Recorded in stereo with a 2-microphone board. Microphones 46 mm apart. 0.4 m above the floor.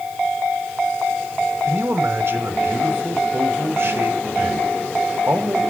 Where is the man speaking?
55° right (ahead or behind), 1.8 m.